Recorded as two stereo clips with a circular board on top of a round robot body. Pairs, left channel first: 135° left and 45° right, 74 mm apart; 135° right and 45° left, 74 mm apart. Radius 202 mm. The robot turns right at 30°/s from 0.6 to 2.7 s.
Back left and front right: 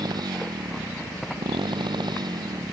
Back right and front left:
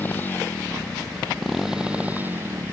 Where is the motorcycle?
70° right; by 2.7 s 5° right.